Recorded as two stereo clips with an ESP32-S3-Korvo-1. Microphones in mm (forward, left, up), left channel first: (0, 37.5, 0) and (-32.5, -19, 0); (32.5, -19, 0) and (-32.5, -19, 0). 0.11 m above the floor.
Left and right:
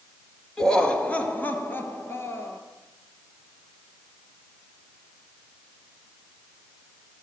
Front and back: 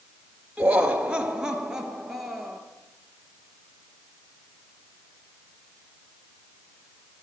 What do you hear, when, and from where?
0.6 s laughter: 130° left, 1.5 m; by 2.6 s 95° left, 2 m